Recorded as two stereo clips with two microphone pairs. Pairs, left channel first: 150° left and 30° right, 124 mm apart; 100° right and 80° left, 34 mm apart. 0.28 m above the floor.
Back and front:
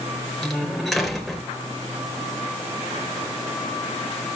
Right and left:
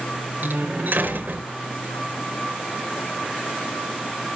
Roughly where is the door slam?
Ahead left.